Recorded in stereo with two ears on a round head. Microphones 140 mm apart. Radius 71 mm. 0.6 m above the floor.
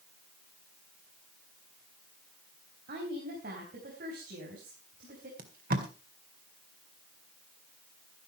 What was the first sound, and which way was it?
A woman speaking, 60° right (ahead or behind).